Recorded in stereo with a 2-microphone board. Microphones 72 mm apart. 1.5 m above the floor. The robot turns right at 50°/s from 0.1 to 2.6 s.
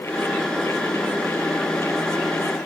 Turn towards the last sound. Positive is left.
No sound to turn to.